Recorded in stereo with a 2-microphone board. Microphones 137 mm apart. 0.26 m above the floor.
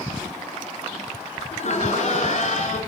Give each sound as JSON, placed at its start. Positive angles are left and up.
{"t": 1.5, "sound": "laughter", "side_deg": 60, "distance_m": 4.0}